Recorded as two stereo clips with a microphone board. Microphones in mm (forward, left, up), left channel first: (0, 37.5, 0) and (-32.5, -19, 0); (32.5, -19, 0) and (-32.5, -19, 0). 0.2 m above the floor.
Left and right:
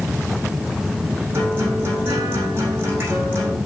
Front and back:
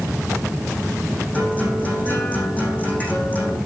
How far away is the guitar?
About 8.5 m.